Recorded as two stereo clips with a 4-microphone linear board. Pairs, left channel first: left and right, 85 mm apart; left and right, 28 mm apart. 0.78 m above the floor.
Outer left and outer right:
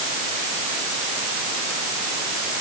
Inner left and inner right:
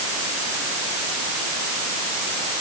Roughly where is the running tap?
I don't hear a running tap.